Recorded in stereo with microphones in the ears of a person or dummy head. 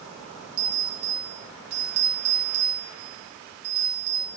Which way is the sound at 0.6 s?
40° right (ahead or behind).